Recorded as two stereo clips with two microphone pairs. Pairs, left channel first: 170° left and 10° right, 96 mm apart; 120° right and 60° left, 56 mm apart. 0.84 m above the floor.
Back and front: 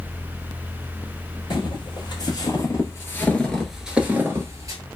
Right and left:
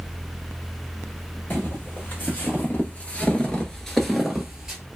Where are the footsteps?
170° right, 1.5 m; by 4.8 s 10° right, 1.0 m.